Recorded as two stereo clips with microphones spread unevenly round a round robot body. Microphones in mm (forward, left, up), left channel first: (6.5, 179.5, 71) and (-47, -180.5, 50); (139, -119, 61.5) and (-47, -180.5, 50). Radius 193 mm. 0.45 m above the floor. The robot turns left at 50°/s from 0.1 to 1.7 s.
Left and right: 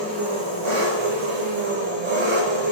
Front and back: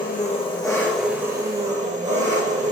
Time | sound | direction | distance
0.0 | an engine running | 30° right | 4 m